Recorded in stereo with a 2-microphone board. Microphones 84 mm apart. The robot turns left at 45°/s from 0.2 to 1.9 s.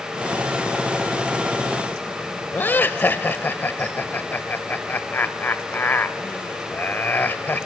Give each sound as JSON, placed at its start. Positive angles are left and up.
{"t": 2.5, "sound": "laughter", "side_deg": 25, "distance_m": 0.9}